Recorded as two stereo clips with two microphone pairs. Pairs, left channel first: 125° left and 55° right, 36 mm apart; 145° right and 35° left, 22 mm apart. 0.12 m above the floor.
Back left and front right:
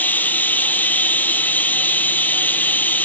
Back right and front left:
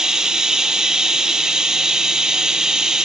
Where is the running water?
95° left, 1.3 m.